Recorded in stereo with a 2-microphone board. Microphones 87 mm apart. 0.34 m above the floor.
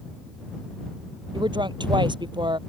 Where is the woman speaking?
65° right (ahead or behind).